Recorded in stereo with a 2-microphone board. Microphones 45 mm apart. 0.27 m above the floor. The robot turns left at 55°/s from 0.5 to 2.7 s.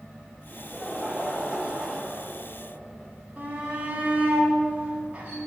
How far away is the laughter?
About 1.6 m.